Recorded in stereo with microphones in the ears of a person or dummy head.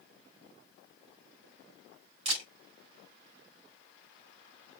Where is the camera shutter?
25° right (ahead or behind), 3 m.